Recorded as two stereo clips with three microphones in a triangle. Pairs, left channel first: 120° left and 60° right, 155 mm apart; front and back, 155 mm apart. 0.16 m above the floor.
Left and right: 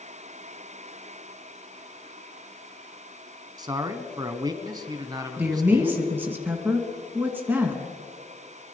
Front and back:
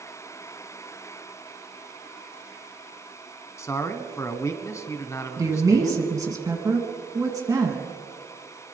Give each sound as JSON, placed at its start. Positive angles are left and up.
{"t": 3.6, "sound": "a man speaking", "azimuth_deg": -45, "distance_m": 1.1}
{"t": 5.4, "sound": "a woman speaking", "azimuth_deg": -125, "distance_m": 1.7}